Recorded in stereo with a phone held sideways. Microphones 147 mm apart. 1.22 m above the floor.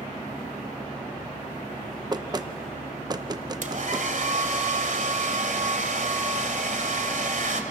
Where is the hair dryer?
60° right (ahead or behind), 2.0 m.